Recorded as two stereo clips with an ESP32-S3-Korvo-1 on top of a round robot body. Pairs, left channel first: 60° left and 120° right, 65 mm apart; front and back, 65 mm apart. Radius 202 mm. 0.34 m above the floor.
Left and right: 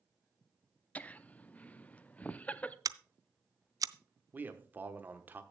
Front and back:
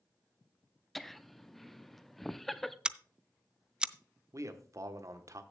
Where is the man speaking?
175° right, 1.3 m.